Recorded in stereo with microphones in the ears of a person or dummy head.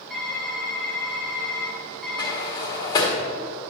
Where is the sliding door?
20° left (ahead or behind), 1.4 m.